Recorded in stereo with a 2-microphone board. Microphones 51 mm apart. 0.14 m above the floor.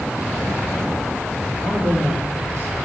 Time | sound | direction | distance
1.6 | a man speaking | 50° right (ahead or behind) | 5.5 m